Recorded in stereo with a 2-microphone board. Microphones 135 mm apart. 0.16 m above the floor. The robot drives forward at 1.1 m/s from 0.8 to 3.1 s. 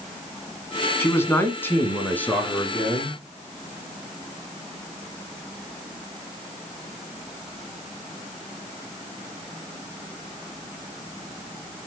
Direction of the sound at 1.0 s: 20° left (ahead or behind).